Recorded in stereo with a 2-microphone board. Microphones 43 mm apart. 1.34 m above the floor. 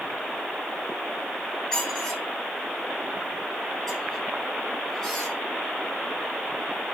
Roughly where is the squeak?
Centre.